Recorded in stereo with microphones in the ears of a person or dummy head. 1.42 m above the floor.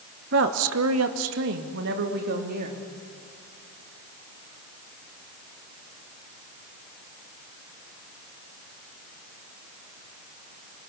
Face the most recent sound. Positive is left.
turn(degrees=-50)  # may be behind; listen again after turning